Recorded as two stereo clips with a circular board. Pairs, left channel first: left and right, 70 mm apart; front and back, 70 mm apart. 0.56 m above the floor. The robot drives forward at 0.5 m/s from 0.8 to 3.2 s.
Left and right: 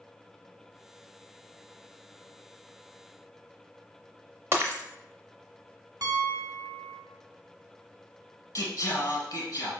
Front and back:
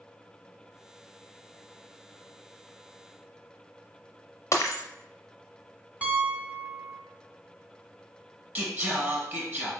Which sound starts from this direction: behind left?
Singing, at 8.6 s.